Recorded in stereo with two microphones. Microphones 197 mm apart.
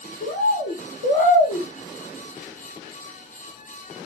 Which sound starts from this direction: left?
A bird, at 0.2 s.